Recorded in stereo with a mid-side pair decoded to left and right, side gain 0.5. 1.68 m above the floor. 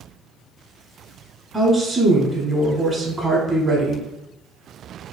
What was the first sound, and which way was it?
A woman speaking, 15° right.